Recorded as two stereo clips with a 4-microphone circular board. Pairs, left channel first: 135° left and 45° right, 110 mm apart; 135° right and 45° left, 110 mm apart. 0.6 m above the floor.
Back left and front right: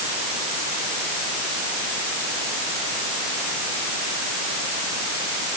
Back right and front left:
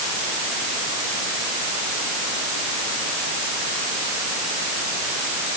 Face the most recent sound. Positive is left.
No sound to turn to.